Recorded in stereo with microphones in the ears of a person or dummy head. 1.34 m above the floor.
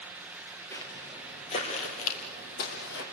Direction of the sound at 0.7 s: 15° left (ahead or behind).